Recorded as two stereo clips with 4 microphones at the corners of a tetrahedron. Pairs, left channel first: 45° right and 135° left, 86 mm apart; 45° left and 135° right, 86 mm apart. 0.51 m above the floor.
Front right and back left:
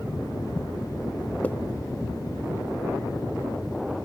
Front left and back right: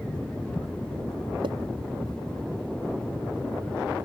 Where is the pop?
120° right.